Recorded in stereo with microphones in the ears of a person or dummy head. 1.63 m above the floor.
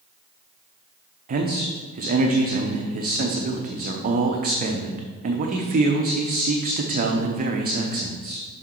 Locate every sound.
1.3 s a man speaking: 40° right (ahead or behind), 0.8 m